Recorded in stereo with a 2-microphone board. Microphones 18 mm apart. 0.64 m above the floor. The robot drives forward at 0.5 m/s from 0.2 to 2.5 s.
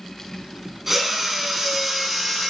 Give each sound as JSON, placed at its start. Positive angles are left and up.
{"t": 0.9, "sound": "a drill", "side_deg": -15, "distance_m": 6.0}